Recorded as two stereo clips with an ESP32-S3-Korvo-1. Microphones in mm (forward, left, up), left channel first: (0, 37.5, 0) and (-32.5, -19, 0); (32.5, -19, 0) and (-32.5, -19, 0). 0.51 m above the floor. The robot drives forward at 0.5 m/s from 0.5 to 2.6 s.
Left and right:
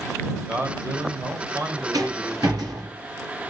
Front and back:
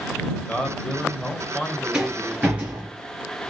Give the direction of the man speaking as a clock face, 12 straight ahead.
2 o'clock.